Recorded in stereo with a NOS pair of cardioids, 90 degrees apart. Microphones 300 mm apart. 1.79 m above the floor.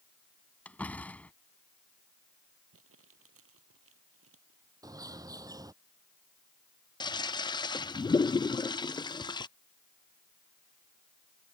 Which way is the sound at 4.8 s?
10° right.